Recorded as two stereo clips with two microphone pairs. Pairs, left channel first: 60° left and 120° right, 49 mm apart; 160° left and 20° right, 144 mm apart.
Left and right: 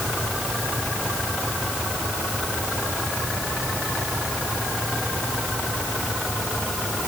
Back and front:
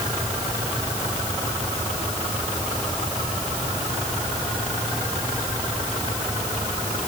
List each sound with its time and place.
Only background noise.